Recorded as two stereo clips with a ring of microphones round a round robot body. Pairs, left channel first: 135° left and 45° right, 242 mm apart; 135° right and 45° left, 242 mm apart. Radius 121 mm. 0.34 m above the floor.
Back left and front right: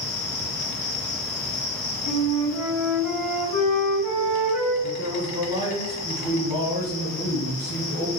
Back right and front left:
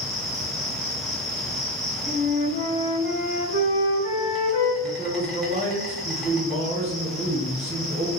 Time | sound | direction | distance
0.0 | an insect | 135° left | 1.0 m
2.0 | a flute | 170° right | 1.6 m
4.8 | a man speaking | 15° left | 1.2 m